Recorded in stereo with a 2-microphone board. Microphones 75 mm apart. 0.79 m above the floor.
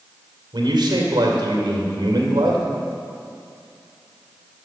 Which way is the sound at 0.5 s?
80° right.